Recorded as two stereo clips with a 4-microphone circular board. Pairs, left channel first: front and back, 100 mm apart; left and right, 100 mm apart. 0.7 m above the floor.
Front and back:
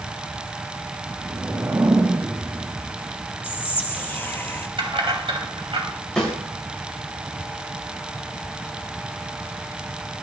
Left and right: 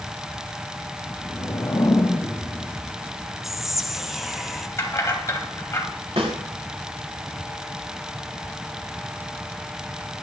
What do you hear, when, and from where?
1.0 s a whoosh: 130° left, 1.0 m
3.4 s whispering: 10° right, 0.7 m
4.8 s keys jangling: 150° left, 2.5 m
6.2 s a snare drum: 80° right, 6.5 m